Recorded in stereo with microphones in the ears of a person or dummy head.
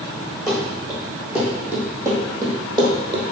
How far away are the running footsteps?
About 4.5 m.